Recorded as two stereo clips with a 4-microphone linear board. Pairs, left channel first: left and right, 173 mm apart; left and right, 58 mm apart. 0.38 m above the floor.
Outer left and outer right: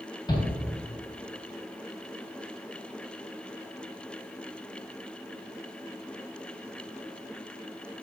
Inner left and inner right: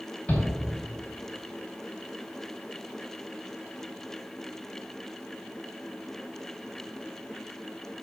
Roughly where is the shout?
Left.